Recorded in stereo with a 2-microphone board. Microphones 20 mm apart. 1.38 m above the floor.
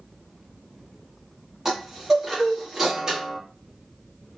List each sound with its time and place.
1.6 s a chime: 20° right (ahead or behind), 1.2 m